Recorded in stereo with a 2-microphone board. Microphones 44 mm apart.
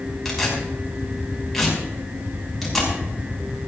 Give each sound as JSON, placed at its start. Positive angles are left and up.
{"t": 0.2, "sound": "tearing paper", "side_deg": 0, "distance_m": 6.0}